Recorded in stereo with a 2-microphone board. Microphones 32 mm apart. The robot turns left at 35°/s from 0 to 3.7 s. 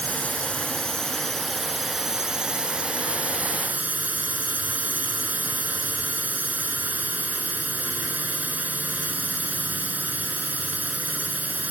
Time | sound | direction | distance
0.0 | a drone | 60° left | ?